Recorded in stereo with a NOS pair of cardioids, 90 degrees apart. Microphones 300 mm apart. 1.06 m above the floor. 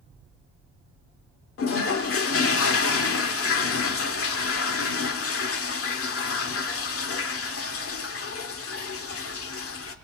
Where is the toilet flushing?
50° left, 1.6 m.